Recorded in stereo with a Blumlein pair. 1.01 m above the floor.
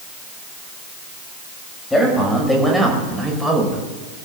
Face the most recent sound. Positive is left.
turn(degrees=-10)